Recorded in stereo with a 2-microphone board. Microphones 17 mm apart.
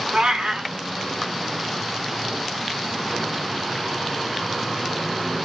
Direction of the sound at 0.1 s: 60° right (ahead or behind).